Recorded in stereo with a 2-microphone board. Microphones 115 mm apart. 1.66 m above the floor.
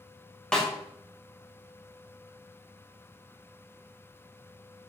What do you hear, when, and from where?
0.5 s a snare drum: 5° left (ahead or behind), 0.9 m